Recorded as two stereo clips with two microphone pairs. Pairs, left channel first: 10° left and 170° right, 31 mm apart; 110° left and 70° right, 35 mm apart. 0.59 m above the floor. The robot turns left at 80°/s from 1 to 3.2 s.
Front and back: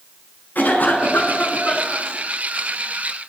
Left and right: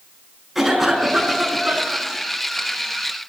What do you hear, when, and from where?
0.6 s a cough: 15° left, 7 m; by 2.1 s 75° right, 7 m